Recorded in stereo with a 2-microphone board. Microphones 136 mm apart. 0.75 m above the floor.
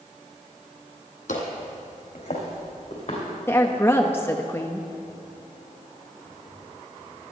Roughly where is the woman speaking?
Centre.